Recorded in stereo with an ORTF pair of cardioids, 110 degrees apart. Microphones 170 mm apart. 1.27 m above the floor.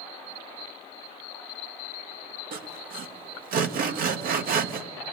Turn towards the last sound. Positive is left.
turn(degrees=-60)